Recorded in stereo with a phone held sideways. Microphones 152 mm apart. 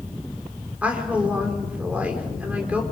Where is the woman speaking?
10° right (ahead or behind), 4 m.